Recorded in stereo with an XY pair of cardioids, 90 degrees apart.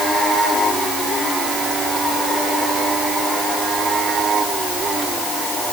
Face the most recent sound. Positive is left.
No sound to turn to.